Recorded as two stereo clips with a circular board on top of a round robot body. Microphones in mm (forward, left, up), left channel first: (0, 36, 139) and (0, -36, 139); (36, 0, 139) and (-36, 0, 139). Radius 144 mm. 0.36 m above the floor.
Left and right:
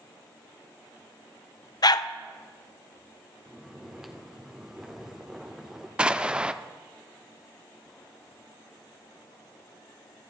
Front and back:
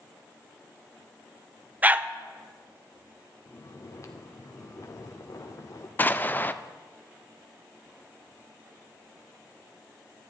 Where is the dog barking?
115° left, 0.6 m.